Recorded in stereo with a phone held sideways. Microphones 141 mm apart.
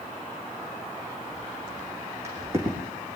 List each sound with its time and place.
1.3 s footsteps: 20° right (ahead or behind), 5.5 m